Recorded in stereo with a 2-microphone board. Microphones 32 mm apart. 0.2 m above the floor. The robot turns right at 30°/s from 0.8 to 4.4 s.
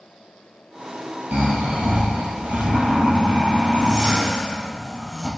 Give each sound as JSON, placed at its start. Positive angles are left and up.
{"t": 1.3, "sound": "snoring", "azimuth_deg": -105, "distance_m": 3.0}